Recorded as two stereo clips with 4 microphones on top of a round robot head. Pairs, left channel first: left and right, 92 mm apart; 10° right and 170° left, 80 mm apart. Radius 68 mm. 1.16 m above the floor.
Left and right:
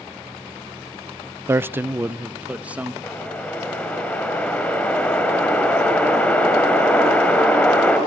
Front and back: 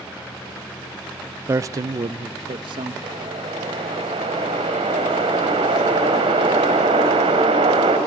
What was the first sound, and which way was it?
A man speaking, 145° right.